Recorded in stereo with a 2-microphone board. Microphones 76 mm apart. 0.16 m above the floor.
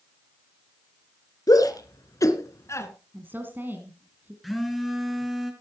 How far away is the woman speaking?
About 1.8 m.